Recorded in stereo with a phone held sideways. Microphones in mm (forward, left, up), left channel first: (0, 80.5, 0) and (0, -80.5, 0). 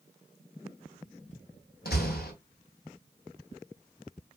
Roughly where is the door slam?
Left.